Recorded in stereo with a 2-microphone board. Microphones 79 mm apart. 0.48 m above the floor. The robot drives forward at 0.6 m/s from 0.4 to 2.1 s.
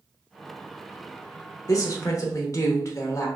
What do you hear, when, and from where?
1.7 s a woman speaking: 45° left (ahead or behind), 1.2 m; by 3.3 s 40° left (ahead or behind), 1.2 m